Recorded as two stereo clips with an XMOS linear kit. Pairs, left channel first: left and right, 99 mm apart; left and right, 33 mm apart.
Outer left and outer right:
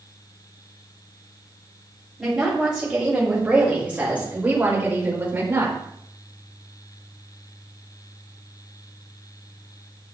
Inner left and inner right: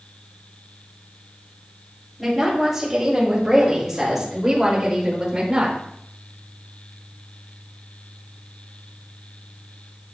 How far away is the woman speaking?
About 5.5 m.